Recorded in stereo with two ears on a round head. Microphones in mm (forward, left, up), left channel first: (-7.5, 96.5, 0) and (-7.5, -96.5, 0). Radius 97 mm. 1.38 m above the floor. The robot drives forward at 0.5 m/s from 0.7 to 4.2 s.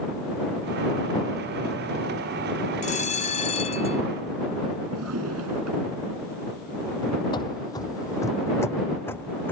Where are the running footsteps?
25° left (ahead or behind); by 9.5 s 10° left (ahead or behind).